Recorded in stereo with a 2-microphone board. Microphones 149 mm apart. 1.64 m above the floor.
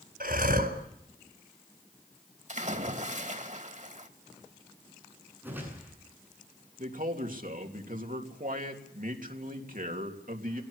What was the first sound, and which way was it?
Breathing, 75° right (ahead or behind).